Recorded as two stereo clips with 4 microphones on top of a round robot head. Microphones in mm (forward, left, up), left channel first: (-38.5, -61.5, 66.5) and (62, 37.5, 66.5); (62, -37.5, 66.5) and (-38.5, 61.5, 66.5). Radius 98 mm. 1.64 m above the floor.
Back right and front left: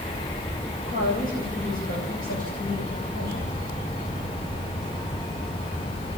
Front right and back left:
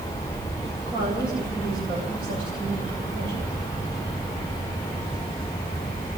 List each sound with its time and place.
0.8 s a woman speaking: 165° right, 9.5 m